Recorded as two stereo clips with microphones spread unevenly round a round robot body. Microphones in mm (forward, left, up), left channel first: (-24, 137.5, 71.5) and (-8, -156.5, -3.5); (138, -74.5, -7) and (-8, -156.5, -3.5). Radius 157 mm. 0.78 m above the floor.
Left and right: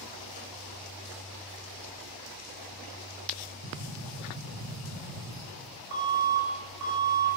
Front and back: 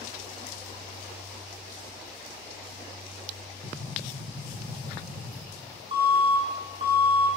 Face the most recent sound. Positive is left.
turn(degrees=-95)